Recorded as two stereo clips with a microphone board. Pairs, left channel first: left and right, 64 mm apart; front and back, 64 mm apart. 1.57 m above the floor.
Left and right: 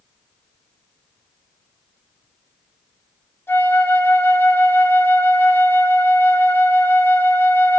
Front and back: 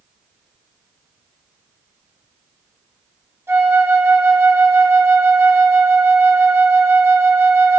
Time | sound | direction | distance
3.5 | a flute | 135° left | 3 m